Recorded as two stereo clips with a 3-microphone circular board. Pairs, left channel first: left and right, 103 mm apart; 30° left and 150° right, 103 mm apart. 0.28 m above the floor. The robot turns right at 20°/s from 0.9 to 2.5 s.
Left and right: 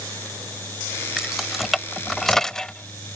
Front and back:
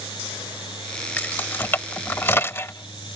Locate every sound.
1.2 s keys jangling: 15° right; by 3.2 s 15° left